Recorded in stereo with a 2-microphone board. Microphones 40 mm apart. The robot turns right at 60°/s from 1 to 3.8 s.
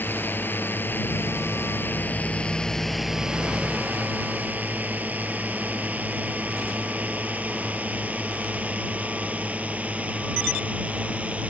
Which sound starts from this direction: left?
A drone, at 0.0 s.